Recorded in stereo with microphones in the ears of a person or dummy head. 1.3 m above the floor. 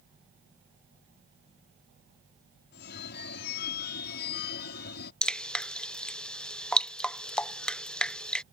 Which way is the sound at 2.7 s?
60° left (ahead or behind).